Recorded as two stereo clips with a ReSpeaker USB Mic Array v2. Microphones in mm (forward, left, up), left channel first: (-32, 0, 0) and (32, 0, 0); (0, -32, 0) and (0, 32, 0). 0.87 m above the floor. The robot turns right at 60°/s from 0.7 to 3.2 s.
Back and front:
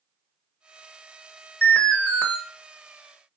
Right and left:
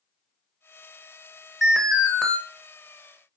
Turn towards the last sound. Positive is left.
turn(degrees=-85)